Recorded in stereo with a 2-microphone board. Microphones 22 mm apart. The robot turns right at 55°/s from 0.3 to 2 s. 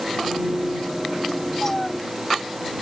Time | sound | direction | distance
1.6 | a cat meowing | 20° left (ahead or behind) | ?